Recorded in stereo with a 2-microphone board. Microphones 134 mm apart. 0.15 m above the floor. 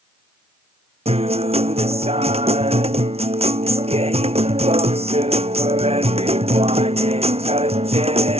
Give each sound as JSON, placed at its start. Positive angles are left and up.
{"t": 1.1, "sound": "a guitar", "side_deg": -50}